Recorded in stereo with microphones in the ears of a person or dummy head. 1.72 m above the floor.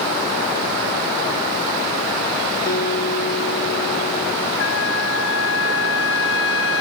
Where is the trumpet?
70° left (ahead or behind).